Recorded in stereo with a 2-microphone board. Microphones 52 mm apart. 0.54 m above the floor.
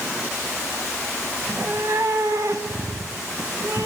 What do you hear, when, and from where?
1.4 s a cat meowing: 55° right (ahead or behind), 1.5 m; by 3.9 s 75° right (ahead or behind), 3 m